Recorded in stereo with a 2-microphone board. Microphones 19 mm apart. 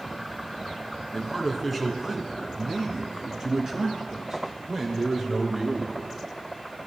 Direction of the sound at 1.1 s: 5° left (ahead or behind).